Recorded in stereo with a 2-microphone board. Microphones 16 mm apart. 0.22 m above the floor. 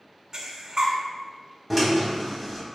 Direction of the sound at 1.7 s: 10° right (ahead or behind).